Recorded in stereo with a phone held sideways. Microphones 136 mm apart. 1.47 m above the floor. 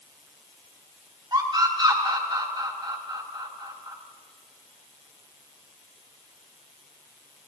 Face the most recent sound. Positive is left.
turn(degrees=-35)  # may be behind; listen again after turning